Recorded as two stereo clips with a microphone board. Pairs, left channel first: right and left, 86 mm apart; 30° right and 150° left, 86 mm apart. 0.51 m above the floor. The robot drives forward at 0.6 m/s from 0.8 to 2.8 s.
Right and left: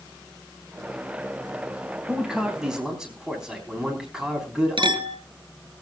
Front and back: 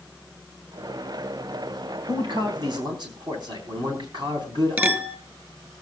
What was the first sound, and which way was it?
A man speaking, 175° left.